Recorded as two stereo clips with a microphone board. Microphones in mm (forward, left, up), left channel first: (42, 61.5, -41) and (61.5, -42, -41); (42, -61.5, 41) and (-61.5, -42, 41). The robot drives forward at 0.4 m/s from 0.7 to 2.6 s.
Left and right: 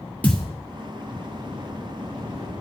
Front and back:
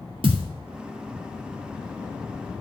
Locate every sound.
0.2 s a thud: 175° left, 2 m